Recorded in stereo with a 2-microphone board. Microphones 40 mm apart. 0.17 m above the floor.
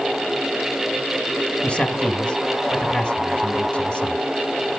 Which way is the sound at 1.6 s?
30° left (ahead or behind).